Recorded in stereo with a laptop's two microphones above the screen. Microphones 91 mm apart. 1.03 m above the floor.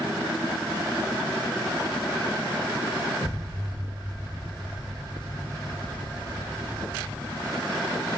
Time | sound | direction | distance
3.2 | an explosion | 40° left (ahead or behind) | 1.5 m